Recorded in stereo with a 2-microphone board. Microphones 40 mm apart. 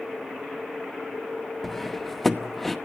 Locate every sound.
1.6 s cutlery clinking: centre (ahead or behind), 0.9 m